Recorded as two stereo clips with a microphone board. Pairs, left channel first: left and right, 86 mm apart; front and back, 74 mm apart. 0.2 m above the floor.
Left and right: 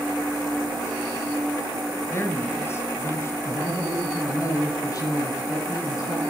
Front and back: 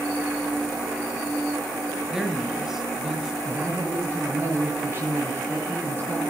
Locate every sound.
2.1 s a man speaking: 105° left, 1.6 m
3.5 s a man speaking: 125° left, 3 m